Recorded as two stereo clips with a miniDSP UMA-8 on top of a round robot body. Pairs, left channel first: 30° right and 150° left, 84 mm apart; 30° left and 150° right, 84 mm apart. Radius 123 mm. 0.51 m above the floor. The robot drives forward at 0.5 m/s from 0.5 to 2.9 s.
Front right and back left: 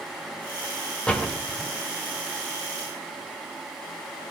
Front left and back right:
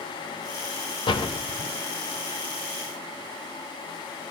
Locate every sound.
1.1 s a door slam: 45° left, 2 m; by 1.7 s 55° left, 2 m